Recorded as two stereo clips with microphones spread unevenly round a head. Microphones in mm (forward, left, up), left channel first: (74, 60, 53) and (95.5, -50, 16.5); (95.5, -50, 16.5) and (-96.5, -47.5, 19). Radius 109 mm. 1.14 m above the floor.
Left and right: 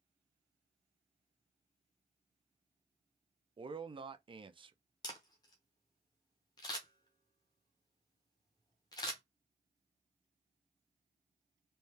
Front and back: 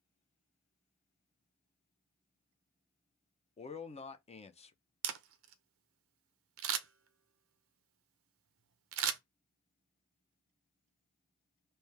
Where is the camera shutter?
170° left, 0.6 m.